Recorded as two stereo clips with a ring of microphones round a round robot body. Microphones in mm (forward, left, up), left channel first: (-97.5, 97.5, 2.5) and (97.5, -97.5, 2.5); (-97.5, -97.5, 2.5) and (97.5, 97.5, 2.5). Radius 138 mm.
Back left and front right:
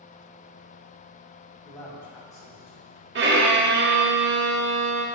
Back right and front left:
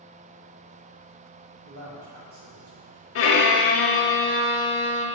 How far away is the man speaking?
About 1.8 m.